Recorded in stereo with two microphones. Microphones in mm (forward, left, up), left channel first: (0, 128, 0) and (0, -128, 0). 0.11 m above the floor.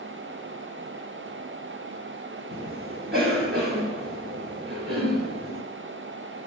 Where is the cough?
40° right (ahead or behind), 2 m.